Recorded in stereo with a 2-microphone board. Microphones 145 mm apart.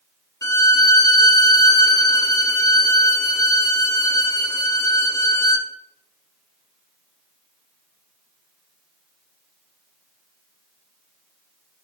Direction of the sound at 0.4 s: 20° left (ahead or behind).